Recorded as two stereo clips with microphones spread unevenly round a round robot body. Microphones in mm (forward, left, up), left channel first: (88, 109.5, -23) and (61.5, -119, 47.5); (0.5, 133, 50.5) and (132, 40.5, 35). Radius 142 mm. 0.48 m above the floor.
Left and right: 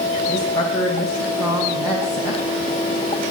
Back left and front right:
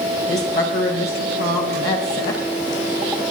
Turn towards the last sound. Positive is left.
turn(degrees=165)